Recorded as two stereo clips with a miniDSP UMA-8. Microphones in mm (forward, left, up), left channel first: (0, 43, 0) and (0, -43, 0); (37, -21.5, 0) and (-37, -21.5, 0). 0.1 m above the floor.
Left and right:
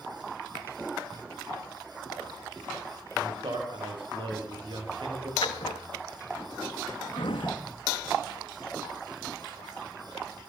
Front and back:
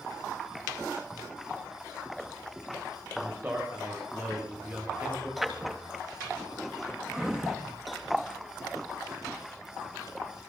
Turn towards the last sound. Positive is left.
turn(degrees=95)